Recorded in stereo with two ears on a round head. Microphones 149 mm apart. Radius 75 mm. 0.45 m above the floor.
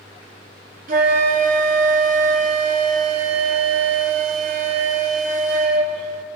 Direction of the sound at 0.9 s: 55° right (ahead or behind).